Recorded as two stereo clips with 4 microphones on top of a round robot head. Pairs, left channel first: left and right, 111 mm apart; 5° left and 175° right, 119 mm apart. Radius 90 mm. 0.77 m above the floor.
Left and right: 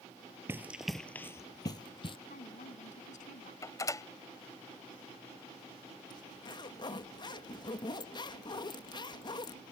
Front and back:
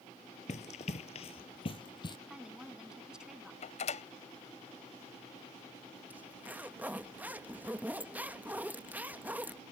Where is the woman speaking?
100° left.